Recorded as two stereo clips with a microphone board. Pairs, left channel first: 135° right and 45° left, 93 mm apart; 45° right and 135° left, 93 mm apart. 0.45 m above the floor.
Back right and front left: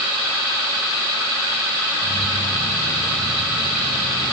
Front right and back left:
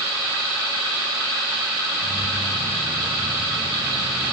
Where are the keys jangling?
120° right; by 4.3 s 115° right.